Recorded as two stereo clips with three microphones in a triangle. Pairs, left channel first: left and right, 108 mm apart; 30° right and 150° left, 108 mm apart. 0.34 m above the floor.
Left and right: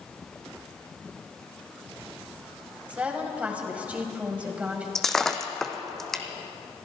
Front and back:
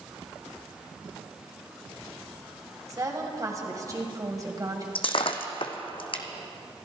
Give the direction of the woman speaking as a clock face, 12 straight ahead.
6 o'clock.